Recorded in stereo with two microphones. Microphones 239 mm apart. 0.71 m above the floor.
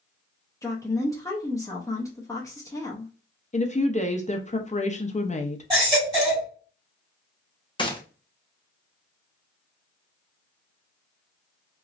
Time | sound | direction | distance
0.6 | a woman speaking | 15° left (ahead or behind) | 0.7 m
3.5 | a woman speaking | 30° left (ahead or behind) | 0.6 m
5.7 | a baby crying | 15° right (ahead or behind) | 2.0 m
7.8 | a gunshot | 20° left (ahead or behind) | 0.7 m